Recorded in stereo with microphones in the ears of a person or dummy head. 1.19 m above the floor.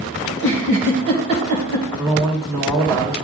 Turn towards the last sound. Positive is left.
turn(degrees=-5)  # may be behind; listen again after turning